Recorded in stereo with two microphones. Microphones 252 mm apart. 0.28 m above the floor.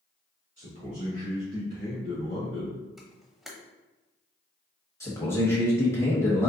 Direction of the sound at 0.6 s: 35° right (ahead or behind).